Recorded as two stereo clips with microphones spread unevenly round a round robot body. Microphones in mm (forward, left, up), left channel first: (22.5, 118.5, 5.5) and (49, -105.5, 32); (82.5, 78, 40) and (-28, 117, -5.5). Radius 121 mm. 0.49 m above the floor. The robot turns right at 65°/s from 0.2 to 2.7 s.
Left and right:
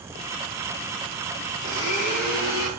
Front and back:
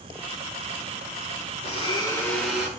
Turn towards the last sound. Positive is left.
turn(degrees=90)